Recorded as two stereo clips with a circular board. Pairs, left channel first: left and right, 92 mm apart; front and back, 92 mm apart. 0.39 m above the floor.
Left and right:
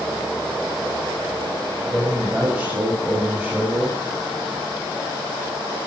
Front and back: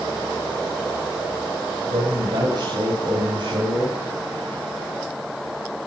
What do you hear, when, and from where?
1.9 s a man speaking: 160° right, 2.5 m